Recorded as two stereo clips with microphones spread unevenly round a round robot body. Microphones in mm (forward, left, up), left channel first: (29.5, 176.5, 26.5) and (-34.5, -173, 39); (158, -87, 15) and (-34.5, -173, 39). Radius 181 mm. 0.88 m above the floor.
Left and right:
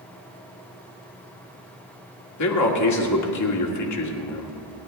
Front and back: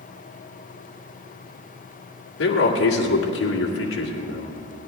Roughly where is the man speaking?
Ahead left.